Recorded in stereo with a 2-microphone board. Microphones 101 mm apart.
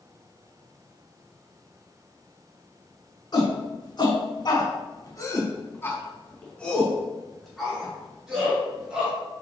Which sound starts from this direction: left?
A shout, at 3.3 s.